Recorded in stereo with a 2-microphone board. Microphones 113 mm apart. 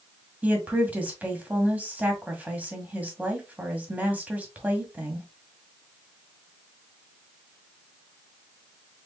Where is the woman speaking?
15° right (ahead or behind), 1.6 m.